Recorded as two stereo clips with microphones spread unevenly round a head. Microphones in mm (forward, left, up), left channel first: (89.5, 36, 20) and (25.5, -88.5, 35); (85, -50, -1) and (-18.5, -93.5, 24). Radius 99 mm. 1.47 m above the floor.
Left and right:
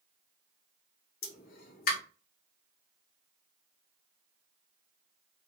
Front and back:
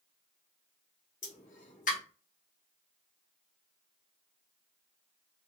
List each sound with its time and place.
1.2 s a pop: 60° left, 1.0 m